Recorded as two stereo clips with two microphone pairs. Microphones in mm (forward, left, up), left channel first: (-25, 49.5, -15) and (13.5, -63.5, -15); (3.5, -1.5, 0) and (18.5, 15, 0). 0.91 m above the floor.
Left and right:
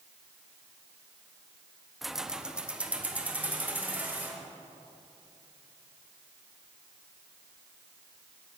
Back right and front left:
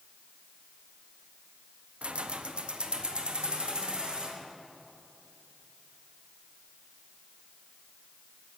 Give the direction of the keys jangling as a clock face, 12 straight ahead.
11 o'clock.